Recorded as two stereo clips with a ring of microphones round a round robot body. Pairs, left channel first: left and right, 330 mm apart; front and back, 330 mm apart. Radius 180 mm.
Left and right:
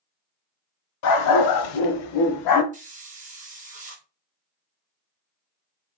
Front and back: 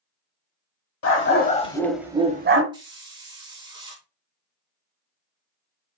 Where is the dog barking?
55° left, 0.8 m; by 2.6 s 125° left, 0.7 m.